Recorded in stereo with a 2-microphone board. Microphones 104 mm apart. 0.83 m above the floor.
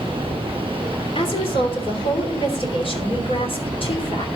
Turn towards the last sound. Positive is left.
turn(degrees=60)  # may be behind; listen again after turning